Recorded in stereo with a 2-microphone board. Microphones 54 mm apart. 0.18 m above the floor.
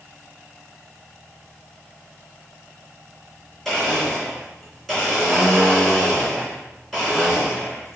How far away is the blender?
About 2.5 m.